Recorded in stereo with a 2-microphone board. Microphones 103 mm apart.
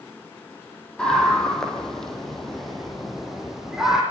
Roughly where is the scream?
Centre.